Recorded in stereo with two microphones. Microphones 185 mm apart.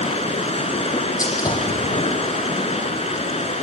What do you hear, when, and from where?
0.0 s running water: 35° left (ahead or behind), 2.5 m
1.2 s a gunshot: 20° left (ahead or behind), 6 m